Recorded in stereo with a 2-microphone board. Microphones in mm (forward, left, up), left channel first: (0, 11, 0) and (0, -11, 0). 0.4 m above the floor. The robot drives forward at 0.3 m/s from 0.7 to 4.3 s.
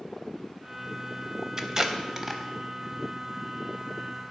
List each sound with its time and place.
1.6 s tape being pulled: 25° right (ahead or behind), 0.5 m; by 2.4 s 15° right (ahead or behind), 0.8 m